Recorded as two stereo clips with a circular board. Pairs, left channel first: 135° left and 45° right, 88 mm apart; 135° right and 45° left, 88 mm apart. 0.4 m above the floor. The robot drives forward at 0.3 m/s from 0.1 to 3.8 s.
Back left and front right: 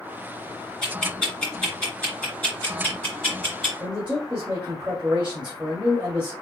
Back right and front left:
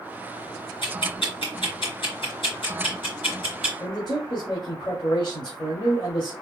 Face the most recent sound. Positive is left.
turn(degrees=-120)